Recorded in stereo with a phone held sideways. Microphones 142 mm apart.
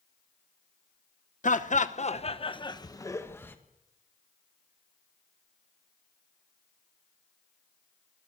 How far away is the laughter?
About 1.0 m.